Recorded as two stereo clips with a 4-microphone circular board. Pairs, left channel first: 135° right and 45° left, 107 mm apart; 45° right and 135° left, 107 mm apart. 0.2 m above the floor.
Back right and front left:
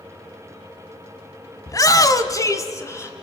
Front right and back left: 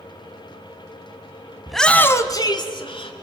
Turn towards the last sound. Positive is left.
turn(degrees=-75)